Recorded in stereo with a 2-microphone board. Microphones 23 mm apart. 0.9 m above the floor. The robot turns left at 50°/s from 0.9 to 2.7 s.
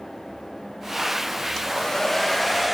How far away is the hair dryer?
About 0.8 m.